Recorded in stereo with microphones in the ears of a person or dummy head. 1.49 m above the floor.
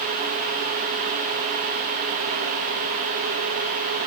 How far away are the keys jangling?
No keys jangling in this recording.